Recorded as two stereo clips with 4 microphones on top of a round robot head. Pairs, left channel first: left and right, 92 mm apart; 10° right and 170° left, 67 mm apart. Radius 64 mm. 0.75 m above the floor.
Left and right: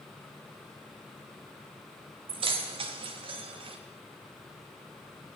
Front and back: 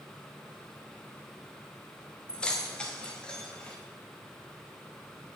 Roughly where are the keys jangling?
Right.